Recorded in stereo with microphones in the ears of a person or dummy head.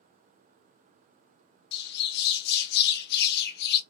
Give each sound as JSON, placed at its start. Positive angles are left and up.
{"t": 1.7, "sound": "a bird", "side_deg": 55, "distance_m": 0.6}